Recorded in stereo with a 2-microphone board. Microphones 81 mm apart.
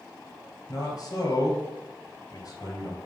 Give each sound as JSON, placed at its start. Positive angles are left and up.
{"t": 0.7, "sound": "a man speaking", "side_deg": 45, "distance_m": 3.0}